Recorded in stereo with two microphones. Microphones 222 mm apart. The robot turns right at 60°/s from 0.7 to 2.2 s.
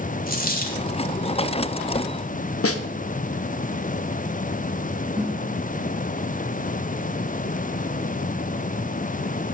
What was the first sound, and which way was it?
A dropped coin, 40° left (ahead or behind).